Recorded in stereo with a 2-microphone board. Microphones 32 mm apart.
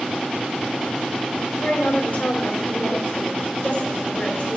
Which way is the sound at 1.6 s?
60° left (ahead or behind).